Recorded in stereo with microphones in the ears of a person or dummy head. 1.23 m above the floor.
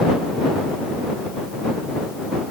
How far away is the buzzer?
I don't hear a buzzer.